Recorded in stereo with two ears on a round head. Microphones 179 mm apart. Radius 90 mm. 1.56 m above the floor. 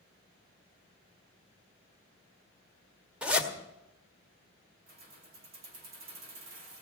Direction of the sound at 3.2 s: 5° right (ahead or behind).